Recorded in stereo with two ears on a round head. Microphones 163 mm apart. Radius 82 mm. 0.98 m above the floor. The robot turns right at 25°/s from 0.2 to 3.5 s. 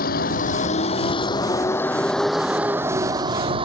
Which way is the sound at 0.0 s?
125° left.